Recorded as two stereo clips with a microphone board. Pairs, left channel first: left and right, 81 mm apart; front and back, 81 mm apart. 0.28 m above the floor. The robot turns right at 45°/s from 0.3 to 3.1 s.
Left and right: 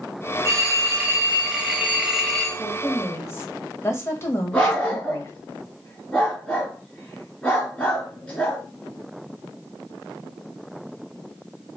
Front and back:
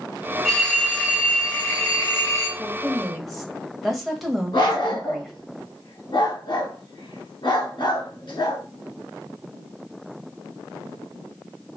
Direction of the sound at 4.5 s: 15° left.